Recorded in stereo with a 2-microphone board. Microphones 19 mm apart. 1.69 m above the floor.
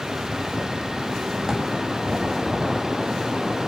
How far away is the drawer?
About 2 m.